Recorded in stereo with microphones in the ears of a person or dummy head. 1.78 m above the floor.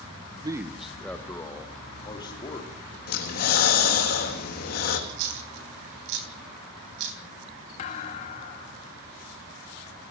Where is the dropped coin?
60° right (ahead or behind), 3.5 m.